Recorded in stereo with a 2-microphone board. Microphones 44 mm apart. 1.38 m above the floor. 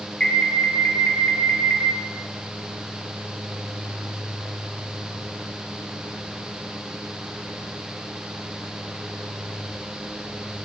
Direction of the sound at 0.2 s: 15° left (ahead or behind).